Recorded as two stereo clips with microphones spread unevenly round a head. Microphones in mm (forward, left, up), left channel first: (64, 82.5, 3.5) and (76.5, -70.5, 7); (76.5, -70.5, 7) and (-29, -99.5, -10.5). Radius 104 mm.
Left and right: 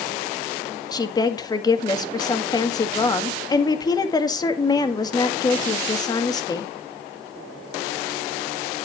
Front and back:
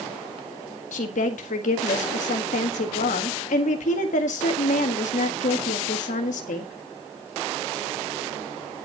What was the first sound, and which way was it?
A woman speaking, 30° left.